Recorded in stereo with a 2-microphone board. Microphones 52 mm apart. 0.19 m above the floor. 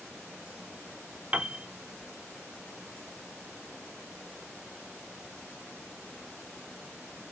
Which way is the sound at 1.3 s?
20° right (ahead or behind).